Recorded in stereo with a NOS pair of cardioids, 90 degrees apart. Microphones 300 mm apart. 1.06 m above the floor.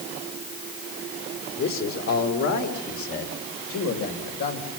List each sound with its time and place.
1.6 s a man speaking: 60° left, 3 m; by 4.7 s 75° left, 4 m